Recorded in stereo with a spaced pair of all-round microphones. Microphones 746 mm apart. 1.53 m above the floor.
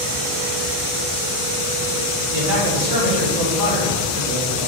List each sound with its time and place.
2.3 s a man speaking: 55° right (ahead or behind), 3.5 m